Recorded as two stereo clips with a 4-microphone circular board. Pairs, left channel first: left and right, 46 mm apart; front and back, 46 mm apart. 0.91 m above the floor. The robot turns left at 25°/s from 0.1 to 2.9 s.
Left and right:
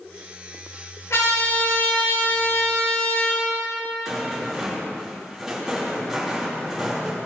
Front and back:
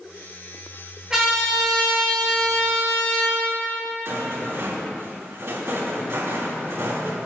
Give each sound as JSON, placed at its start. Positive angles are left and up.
{"t": 1.1, "sound": "a trumpet", "azimuth_deg": 105, "distance_m": 3.5}
{"t": 4.0, "sound": "a rattle", "azimuth_deg": -170, "distance_m": 3.0}